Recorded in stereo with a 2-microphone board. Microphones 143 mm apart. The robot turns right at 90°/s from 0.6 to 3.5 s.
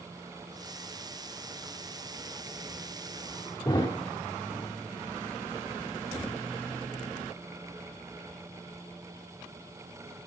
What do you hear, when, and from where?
3.6 s a thud: 25° left (ahead or behind), 2 m